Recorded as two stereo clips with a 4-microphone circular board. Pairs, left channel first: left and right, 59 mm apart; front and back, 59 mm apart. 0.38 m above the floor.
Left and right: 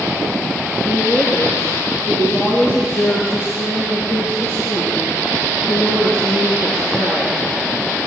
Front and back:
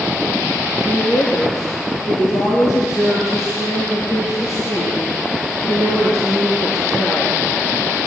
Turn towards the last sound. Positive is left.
turn(degrees=45)